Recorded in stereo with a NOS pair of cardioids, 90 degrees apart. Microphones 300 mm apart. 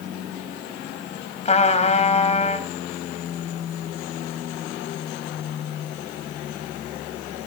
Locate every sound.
1.4 s a trumpet: 25° left, 4 m